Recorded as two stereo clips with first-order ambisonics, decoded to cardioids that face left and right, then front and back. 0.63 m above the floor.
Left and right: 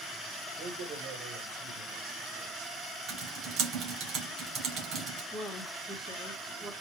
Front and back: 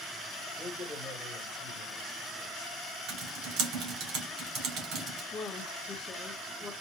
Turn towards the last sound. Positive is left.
turn(degrees=-30)